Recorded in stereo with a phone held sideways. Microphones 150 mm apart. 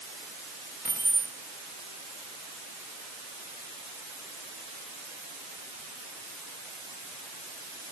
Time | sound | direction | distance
0.8 | keys jangling | 75° left (ahead or behind) | 1.4 m